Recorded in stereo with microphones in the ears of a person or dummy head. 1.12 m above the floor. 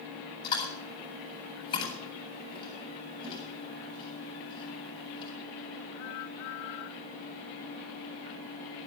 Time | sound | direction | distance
0.4 | chewing | 35° left (ahead or behind) | 7.5 m